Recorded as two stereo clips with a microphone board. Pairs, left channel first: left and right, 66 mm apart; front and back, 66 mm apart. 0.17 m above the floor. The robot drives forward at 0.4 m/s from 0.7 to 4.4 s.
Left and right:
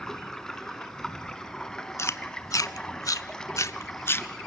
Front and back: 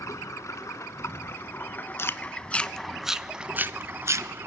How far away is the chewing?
About 0.6 m.